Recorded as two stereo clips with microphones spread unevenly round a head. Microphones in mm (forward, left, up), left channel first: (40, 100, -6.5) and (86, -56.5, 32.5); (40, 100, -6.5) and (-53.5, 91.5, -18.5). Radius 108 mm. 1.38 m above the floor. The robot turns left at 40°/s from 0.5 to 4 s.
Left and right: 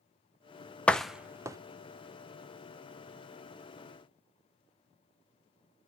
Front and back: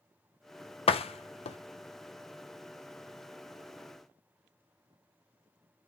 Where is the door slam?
20° left, 0.8 m; by 1.6 s 5° right, 0.8 m.